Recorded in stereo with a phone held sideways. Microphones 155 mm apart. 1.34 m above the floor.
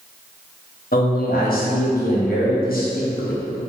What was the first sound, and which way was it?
A man speaking, 70° left (ahead or behind).